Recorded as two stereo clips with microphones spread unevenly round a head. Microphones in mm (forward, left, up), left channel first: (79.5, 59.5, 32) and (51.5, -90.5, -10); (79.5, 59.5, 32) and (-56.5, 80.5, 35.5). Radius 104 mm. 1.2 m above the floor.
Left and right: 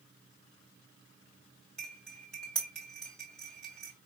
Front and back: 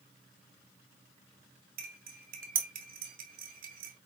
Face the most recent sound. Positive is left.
turn(degrees=165)